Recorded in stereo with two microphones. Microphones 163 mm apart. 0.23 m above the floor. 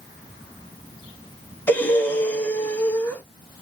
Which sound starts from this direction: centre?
Breathing, at 1.7 s.